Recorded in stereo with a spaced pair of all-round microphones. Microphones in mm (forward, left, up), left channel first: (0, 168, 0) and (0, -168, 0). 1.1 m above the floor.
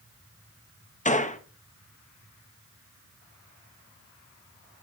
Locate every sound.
1.1 s a gunshot: 25° left (ahead or behind), 0.9 m